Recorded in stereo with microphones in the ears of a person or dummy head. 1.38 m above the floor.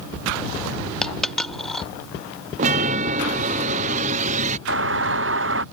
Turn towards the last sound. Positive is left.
turn(degrees=-55)  # may be behind; listen again after turning